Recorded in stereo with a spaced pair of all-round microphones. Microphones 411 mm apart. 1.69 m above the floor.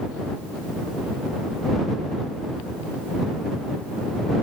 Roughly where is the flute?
No flute in this recording.